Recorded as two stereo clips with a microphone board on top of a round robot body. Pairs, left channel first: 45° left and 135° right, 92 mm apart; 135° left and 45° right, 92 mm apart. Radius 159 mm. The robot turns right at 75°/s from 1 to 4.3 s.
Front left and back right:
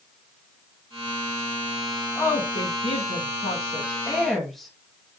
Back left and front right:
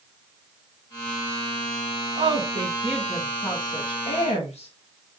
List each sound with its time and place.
2.1 s a woman speaking: 30° right, 1.8 m; by 4.7 s 130° left, 1.8 m